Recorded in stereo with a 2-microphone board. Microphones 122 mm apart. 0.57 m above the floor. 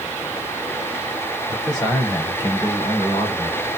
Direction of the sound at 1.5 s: 40° left (ahead or behind).